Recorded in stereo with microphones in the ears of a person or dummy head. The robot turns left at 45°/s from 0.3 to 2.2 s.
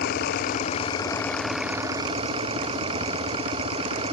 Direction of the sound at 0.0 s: 55° left.